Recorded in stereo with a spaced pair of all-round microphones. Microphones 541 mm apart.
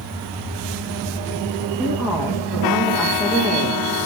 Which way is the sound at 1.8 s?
5° right (ahead or behind).